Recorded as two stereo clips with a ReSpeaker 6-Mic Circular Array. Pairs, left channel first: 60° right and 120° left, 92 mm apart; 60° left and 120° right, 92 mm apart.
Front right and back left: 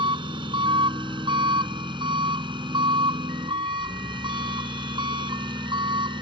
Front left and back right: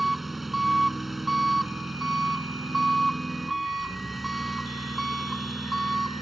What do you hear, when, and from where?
0.0 s an engine running: 150° left